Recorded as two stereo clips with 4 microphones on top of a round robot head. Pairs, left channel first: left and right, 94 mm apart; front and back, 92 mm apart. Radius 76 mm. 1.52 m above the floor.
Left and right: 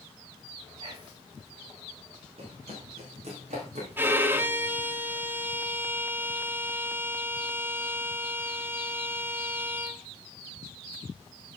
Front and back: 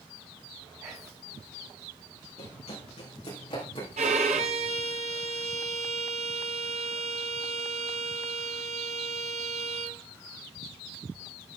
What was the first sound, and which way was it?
Whispering, 120° right.